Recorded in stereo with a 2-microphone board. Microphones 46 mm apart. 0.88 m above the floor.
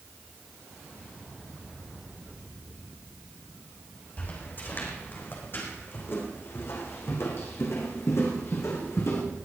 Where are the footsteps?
40° left (ahead or behind), 3.5 m; by 9.2 s 75° left (ahead or behind), 4 m.